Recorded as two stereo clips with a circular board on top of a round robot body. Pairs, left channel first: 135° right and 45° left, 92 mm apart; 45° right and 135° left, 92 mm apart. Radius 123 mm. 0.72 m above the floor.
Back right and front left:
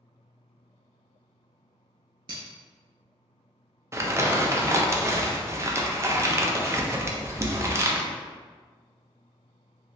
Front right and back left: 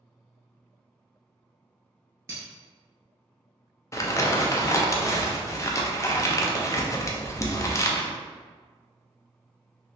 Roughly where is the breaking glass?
Left.